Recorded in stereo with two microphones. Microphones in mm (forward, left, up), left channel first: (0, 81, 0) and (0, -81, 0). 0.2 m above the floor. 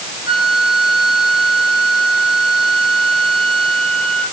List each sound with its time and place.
0.3 s a flute: 55° left (ahead or behind), 3 m